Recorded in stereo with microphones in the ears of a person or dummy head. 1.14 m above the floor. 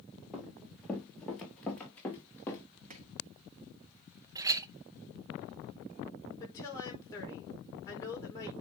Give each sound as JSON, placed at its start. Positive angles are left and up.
{"t": 0.3, "sound": "running footsteps", "side_deg": 0, "distance_m": 2.5}
{"t": 2.9, "sound": "chopping", "side_deg": -45, "distance_m": 1.7}
{"t": 4.3, "sound": "a clink", "side_deg": -20, "distance_m": 0.5}
{"t": 6.4, "sound": "a woman speaking", "side_deg": 20, "distance_m": 4.5}